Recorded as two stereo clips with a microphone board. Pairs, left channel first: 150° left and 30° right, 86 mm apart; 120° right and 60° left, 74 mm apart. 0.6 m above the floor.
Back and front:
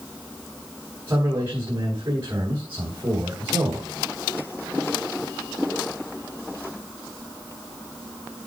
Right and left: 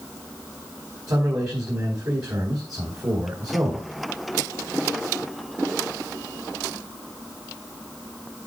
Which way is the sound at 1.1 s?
30° left.